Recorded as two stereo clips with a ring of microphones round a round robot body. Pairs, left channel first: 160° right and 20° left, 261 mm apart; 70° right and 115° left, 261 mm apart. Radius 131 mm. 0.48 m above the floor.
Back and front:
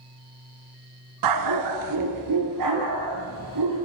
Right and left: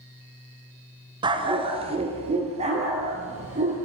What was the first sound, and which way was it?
A dog barking, 40° left.